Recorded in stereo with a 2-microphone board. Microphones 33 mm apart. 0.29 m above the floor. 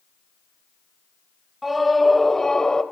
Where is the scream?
5° right (ahead or behind), 1.2 m; by 2.8 s 20° left (ahead or behind), 1.3 m.